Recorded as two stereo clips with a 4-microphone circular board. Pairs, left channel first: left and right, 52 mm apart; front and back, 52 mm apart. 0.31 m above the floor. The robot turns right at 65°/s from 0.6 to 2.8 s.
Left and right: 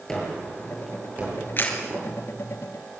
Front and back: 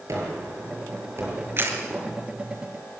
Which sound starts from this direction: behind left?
A camera shutter, at 1.6 s.